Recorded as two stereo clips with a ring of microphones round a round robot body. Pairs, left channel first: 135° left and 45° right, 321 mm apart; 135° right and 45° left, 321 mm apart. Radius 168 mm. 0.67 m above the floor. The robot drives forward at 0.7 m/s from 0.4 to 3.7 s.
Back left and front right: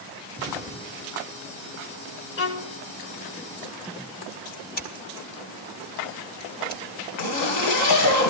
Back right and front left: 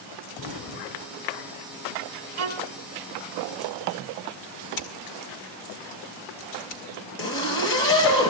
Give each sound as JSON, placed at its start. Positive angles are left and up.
{"t": 0.4, "sound": "an explosion", "azimuth_deg": -125, "distance_m": 2.5}
{"t": 2.4, "sound": "a violin", "azimuth_deg": 85, "distance_m": 0.9}
{"t": 4.8, "sound": "scissors", "azimuth_deg": -160, "distance_m": 1.8}
{"t": 7.2, "sound": "a zipper", "azimuth_deg": 170, "distance_m": 3.5}